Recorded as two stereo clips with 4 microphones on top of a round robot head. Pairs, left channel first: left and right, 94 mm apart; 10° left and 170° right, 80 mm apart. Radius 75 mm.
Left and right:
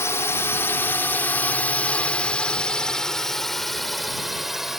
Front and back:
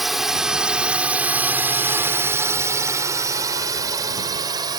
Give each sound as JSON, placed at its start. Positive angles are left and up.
{"t": 0.0, "sound": "a drone", "azimuth_deg": 105}